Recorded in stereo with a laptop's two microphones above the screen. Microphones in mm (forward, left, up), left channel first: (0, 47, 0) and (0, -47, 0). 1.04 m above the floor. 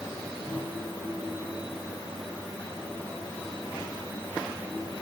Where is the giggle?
I don't hear a giggle.